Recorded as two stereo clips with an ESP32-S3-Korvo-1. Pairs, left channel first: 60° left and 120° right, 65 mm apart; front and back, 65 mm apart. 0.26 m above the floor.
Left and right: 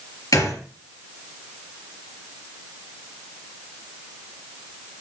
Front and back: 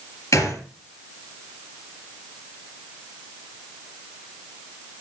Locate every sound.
0.3 s a gunshot: 30° left, 3.5 m